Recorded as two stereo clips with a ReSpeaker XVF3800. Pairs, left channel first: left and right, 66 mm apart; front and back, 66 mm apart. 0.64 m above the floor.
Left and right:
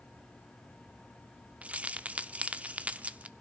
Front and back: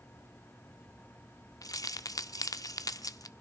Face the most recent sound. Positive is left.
turn(degrees=-20)